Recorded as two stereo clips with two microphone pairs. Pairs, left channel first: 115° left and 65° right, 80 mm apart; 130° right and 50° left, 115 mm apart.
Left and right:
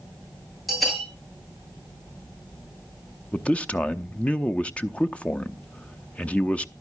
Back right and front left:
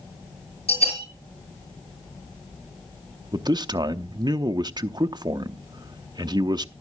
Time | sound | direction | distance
0.7 | a bell | 160° right | 5.5 m
3.3 | a man speaking | 45° left | 0.5 m